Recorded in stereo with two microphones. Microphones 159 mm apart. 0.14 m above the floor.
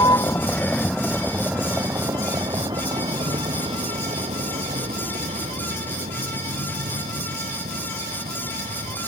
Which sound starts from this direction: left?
A vehicle, at 0.0 s.